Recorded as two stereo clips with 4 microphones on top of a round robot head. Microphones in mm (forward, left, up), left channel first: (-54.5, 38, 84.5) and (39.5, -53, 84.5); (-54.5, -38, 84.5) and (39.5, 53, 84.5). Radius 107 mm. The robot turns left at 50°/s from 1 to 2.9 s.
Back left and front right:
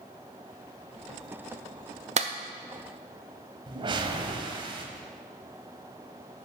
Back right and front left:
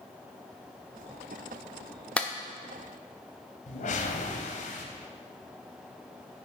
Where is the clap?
55° right, 0.8 m; by 2.3 s 65° right, 0.8 m.